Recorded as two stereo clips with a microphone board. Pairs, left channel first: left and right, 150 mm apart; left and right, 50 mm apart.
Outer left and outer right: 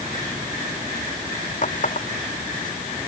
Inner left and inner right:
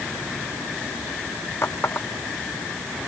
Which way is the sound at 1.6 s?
55° left (ahead or behind).